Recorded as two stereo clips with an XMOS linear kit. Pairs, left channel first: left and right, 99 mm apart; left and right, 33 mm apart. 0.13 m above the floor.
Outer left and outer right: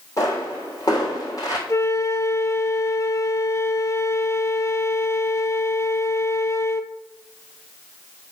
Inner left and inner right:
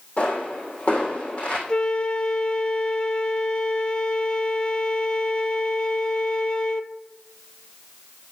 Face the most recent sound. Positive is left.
turn(degrees=30)  # may be behind; listen again after turning